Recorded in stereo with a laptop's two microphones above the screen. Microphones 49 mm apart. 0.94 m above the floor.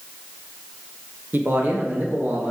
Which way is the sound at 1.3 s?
40° right (ahead or behind).